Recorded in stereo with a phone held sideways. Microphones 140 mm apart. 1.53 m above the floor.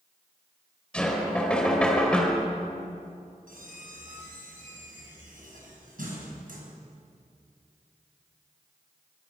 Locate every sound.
0.9 s knocking: 5° left (ahead or behind), 4 m
3.5 s a squeak: 75° right (ahead or behind), 5.5 m